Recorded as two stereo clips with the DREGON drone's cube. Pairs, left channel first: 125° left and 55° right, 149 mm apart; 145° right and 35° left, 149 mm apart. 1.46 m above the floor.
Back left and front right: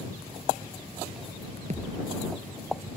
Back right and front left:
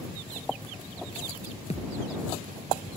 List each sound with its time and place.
1.7 s a thud: 100° right